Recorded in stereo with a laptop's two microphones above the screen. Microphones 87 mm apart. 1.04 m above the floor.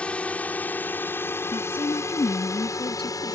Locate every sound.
0.0 s a drone: 15° left (ahead or behind); by 3.4 s 45° left (ahead or behind)
1.5 s a woman speaking: 80° left